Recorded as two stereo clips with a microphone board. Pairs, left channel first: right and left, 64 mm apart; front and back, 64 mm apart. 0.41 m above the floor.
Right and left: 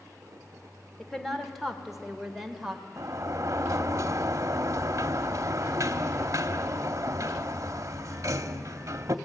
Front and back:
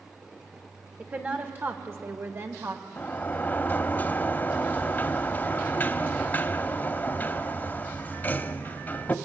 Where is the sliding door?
60° left, 0.8 m.